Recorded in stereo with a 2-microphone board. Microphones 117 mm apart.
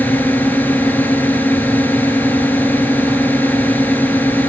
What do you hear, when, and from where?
0.0 s a drone: 15° left (ahead or behind)